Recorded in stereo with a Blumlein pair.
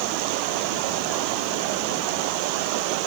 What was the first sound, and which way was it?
Only background noise.